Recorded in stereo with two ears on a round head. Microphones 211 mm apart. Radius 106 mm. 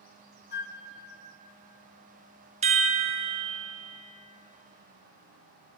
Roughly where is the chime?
Right.